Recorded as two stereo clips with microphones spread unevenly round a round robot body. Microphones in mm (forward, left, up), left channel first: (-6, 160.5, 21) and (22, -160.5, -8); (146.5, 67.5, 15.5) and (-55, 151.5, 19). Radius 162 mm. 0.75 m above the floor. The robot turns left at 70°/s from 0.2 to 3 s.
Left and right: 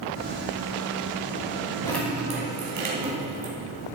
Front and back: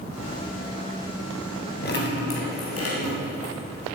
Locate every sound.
1.8 s dripping: 20° left, 3 m; by 3.5 s 65° right, 3 m